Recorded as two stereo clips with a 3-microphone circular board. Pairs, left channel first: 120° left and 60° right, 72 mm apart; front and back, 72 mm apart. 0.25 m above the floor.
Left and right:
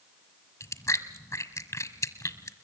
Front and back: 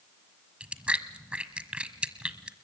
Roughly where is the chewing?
Left.